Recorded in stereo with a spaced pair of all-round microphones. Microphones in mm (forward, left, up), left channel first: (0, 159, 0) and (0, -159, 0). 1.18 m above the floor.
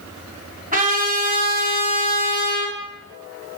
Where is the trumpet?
25° right (ahead or behind), 3 m.